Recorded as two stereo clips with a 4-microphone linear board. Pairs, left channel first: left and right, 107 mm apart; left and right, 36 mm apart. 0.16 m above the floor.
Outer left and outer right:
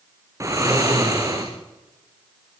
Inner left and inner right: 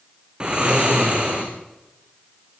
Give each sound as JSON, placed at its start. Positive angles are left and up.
{"t": 0.4, "sound": "snoring", "side_deg": -30, "distance_m": 4.0}